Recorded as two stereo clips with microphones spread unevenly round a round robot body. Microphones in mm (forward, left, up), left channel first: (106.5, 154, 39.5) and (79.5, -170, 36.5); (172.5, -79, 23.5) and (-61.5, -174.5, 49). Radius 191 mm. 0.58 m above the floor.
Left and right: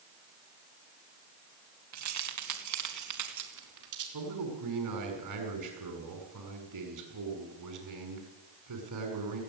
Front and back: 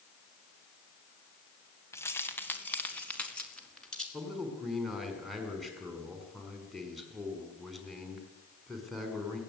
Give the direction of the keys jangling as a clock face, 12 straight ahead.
2 o'clock.